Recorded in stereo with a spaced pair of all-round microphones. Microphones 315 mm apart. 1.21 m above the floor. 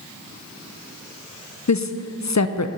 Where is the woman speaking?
60° left (ahead or behind), 0.6 m.